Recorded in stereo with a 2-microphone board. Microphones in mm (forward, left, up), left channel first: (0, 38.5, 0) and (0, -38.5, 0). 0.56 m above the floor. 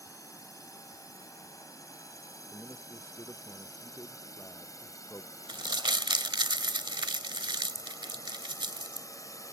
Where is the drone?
40° left (ahead or behind).